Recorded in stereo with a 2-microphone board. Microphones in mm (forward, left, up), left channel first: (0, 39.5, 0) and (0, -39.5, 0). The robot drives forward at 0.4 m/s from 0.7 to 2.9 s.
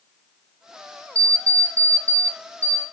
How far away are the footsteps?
No footsteps in this recording.